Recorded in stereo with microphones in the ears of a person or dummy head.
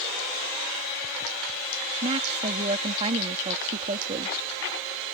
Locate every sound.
2.0 s a woman speaking: 30° right (ahead or behind)